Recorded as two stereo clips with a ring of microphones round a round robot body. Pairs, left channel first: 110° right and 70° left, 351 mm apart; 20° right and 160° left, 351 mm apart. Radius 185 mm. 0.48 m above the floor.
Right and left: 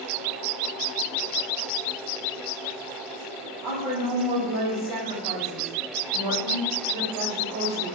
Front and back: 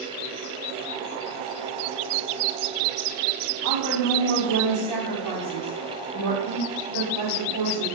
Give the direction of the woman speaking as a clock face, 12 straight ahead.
10 o'clock.